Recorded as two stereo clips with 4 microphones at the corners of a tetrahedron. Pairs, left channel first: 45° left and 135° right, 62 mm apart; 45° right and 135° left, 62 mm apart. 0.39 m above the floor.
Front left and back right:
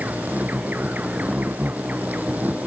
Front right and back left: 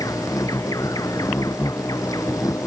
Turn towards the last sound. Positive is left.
turn(degrees=-70)